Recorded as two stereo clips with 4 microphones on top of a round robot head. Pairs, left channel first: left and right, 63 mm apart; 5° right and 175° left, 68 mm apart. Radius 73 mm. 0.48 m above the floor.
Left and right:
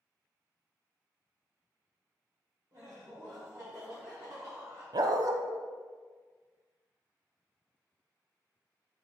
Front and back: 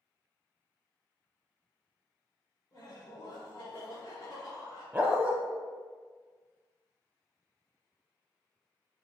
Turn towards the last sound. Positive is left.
turn(degrees=-110)